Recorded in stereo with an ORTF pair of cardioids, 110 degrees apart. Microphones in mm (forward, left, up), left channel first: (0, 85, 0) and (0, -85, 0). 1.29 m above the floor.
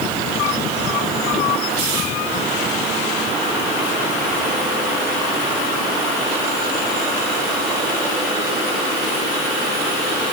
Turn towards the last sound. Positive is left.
No sound to turn to.